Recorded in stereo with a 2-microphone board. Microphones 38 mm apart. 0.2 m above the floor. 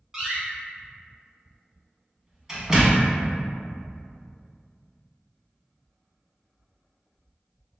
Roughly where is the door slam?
Centre.